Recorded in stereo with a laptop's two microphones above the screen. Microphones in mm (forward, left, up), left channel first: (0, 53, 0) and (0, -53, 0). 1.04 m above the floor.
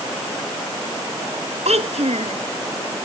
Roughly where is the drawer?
I don't hear a drawer.